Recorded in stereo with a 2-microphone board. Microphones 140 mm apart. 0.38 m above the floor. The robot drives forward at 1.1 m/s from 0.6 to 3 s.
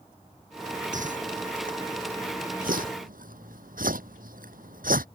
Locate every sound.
0.9 s a whoosh: 65° right (ahead or behind); by 5.1 s 85° right